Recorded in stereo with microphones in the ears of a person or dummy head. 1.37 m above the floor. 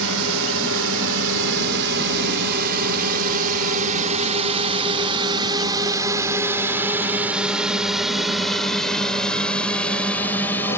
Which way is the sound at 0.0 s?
75° right (ahead or behind).